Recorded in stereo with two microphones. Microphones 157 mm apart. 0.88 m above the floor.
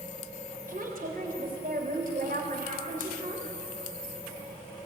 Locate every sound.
0.7 s a woman speaking: 65° right (ahead or behind), 3.5 m